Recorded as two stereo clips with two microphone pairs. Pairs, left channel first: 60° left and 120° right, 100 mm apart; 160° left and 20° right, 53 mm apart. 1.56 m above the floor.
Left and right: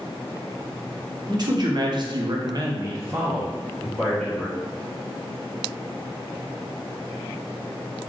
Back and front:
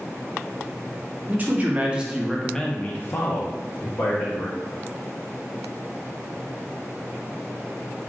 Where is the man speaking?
75° right, 0.9 m; by 4.6 s 145° left, 1.1 m.